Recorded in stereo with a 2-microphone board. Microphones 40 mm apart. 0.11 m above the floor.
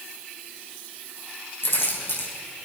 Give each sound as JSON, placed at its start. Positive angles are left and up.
{"t": 1.6, "sound": "keys jangling", "side_deg": 65, "distance_m": 4.0}